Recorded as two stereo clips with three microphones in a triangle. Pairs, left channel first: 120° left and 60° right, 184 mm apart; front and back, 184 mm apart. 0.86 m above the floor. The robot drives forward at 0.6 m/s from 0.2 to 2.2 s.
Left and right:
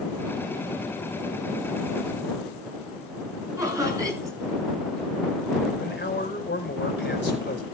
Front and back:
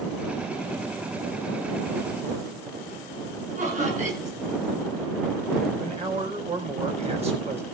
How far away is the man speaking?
About 4.5 m.